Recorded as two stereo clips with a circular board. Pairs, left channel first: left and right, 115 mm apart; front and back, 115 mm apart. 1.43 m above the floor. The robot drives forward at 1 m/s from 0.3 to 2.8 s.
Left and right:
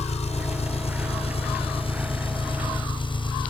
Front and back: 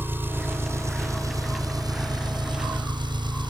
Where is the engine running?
110° left; by 3.5 s 135° left.